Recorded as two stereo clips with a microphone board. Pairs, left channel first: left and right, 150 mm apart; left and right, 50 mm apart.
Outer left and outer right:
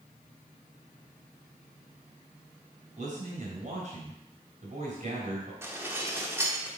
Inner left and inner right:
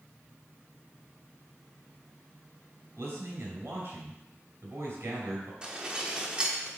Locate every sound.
3.0 s a man speaking: 60° right (ahead or behind), 3 m
5.6 s dishes clattering: 15° right (ahead or behind), 1.1 m